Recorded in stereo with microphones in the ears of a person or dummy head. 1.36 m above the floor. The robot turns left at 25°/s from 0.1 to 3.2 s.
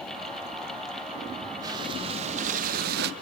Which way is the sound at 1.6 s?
20° right.